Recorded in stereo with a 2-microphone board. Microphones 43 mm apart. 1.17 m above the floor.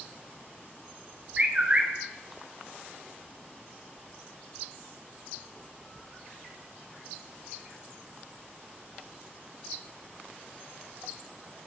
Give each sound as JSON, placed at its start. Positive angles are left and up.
{"t": 1.4, "sound": "a bird", "side_deg": -30, "distance_m": 0.7}